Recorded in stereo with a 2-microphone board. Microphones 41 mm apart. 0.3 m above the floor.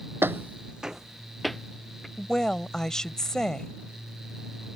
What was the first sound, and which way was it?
Footsteps, 65° right (ahead or behind).